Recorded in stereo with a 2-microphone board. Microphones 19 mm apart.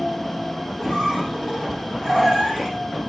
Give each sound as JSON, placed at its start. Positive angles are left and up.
{"t": 0.8, "sound": "a squeak", "side_deg": 20, "distance_m": 4.0}